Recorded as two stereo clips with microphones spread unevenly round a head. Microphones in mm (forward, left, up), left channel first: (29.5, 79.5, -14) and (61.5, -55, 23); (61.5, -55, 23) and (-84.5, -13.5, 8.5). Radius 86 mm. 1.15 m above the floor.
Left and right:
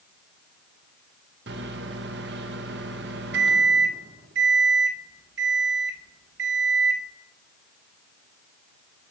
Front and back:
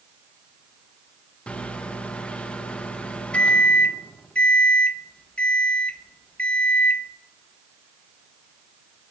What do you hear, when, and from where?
1.5 s a microwave: 100° right, 1.1 m